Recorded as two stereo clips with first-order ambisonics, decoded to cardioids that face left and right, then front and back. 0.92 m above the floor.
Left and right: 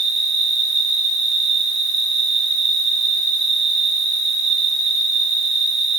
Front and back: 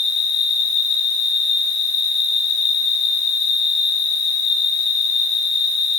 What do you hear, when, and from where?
0.0 s an insect: 50° right, 3.5 m